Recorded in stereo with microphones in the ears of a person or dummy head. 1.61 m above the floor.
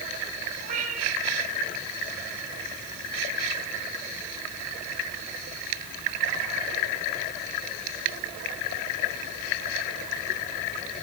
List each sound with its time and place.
0.6 s a cat meowing: 45° right (ahead or behind), 8 m